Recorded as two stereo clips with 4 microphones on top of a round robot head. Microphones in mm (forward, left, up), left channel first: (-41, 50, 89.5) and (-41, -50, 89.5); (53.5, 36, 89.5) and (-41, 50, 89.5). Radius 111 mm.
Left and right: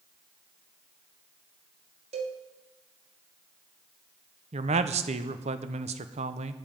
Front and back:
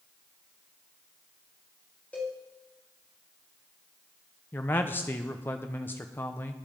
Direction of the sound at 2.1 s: 90° right.